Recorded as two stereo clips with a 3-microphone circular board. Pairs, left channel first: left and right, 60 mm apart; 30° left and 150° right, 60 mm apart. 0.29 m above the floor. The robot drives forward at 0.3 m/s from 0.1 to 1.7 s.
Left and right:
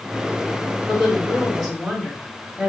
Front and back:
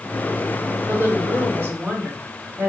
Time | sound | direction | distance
0.9 | a woman speaking | straight behind | 1.3 m